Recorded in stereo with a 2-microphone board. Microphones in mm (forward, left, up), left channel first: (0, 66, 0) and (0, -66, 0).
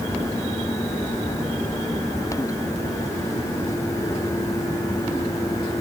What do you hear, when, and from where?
Only background noise.